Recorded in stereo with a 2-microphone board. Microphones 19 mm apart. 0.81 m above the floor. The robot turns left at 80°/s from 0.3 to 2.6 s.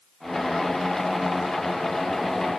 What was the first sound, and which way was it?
Only background noise.